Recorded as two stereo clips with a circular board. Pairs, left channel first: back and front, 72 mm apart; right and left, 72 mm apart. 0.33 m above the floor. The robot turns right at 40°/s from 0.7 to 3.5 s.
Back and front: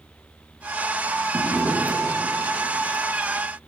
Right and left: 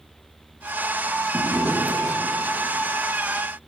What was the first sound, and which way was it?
A drawer, 35° left.